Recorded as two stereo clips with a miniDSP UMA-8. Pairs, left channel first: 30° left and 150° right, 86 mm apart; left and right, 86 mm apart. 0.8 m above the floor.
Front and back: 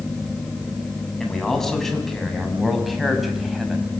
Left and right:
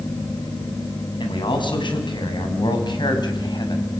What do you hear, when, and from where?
1.2 s a man speaking: 115° left, 6.5 m; by 4.0 s 125° left, 5 m